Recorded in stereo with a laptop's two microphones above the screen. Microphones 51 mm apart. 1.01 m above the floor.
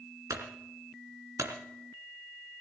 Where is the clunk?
75° right (ahead or behind), 2.5 m.